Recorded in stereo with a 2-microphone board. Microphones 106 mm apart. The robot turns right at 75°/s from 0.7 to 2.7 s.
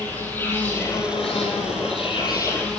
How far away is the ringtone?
I don't hear a ringtone.